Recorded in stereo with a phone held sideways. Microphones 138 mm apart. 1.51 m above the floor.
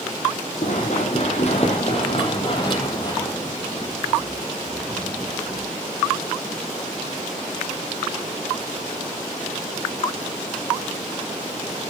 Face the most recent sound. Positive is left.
turn(degrees=-5)  # may be behind; listen again after turning